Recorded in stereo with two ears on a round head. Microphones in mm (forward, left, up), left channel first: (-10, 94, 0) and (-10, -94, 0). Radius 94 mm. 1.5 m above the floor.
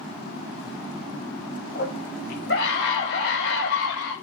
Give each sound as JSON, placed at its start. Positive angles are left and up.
{"t": 1.8, "sound": "a scream", "side_deg": 40, "distance_m": 7.0}